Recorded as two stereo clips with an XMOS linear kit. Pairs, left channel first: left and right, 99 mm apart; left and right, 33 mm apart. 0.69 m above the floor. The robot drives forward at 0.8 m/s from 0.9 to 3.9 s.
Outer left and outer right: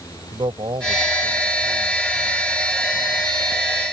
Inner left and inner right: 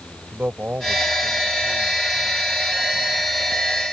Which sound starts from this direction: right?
A man speaking, at 0.3 s.